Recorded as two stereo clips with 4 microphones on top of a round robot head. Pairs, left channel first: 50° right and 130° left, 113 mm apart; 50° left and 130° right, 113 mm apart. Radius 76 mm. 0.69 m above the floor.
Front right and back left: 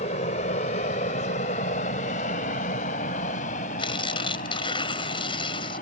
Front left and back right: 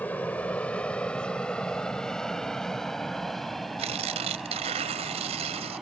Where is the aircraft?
30° right; by 5.8 s 45° right.